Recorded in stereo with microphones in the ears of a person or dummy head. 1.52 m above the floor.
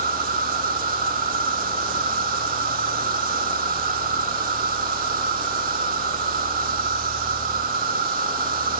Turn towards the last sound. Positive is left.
turn(degrees=-45)  # may be behind; listen again after turning